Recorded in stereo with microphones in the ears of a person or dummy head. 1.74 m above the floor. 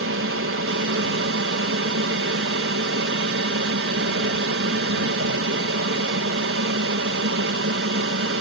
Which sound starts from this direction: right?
An aircraft, at 0.0 s.